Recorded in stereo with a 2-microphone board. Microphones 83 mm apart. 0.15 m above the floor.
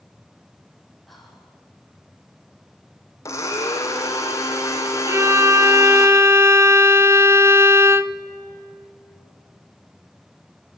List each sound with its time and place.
1.1 s whispering: centre (ahead or behind), 5.5 m
3.2 s a blender: 35° left (ahead or behind), 3 m
5.1 s a violin: 35° right (ahead or behind), 0.7 m